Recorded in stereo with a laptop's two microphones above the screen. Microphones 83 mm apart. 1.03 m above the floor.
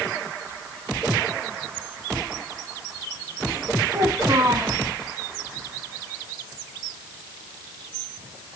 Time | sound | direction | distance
3.9 | a child speaking | 45° right (ahead or behind) | 5 m